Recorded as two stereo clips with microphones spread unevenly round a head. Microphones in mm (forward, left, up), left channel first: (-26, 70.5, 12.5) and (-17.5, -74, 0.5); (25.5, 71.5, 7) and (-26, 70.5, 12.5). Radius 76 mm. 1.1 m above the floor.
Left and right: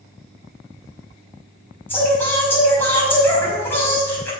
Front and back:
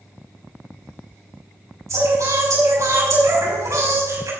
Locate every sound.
1.9 s singing: 170° left, 5.5 m